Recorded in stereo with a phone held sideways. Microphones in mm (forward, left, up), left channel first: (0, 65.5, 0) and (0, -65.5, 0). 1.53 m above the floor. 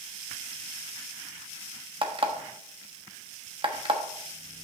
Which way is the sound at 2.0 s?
40° right (ahead or behind).